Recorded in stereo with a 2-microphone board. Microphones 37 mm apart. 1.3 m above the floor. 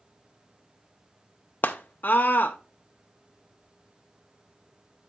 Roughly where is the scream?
Left.